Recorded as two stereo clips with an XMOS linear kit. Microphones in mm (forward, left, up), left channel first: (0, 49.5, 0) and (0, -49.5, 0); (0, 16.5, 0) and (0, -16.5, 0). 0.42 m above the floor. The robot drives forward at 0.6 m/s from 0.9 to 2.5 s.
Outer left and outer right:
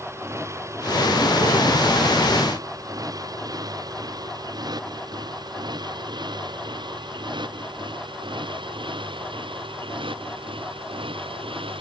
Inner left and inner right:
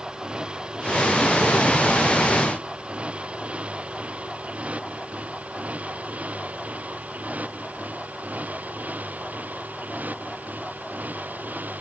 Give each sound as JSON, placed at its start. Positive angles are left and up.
{"t": 0.0, "sound": "a motorcycle", "side_deg": -30}